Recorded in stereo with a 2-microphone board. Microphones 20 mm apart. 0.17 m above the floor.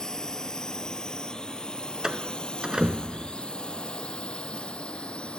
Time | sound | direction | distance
0.0 | a drone | 35° left (ahead or behind) | ?
2.0 | a door slam | 40° right (ahead or behind) | ?